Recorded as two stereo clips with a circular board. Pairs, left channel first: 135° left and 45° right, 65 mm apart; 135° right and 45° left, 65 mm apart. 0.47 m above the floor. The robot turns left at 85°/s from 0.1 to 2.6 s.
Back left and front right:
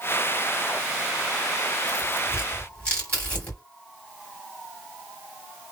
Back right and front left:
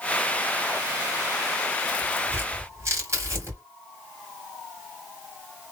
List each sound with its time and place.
1.9 s tearing paper: 140° left, 2 m; by 3.6 s 75° left, 2 m